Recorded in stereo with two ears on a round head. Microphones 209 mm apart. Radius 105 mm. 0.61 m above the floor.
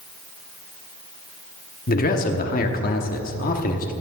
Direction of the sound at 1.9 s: 40° left (ahead or behind).